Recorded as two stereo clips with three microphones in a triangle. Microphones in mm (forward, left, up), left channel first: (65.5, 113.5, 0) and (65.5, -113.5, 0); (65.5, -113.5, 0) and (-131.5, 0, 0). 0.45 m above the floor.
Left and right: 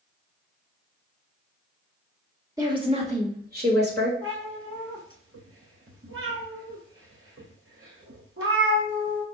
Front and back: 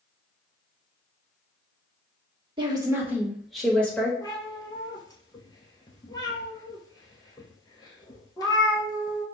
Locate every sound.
2.6 s a woman speaking: 155° right, 1.2 m; by 4.1 s 110° right, 1.7 m
4.2 s a cat meowing: 105° right, 1.2 m